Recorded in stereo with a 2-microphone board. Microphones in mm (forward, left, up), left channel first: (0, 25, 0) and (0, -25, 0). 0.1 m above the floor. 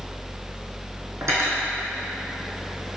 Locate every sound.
1.2 s cutlery clinking: 70° right (ahead or behind), 3 m